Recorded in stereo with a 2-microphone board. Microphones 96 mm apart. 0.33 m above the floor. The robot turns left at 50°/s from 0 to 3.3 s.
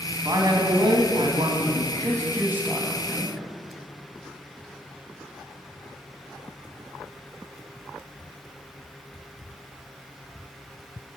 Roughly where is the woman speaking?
Ahead right.